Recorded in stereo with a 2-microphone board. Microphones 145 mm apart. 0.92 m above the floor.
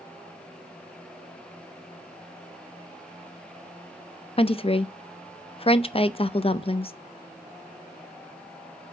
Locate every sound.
4.4 s a woman speaking: 40° left (ahead or behind), 0.6 m